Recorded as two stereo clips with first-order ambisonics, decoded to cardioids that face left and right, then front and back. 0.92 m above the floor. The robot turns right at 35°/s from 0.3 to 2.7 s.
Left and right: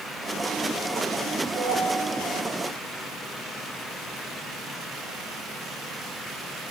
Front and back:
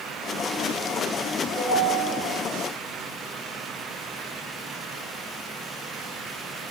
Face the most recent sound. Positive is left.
turn(degrees=-45)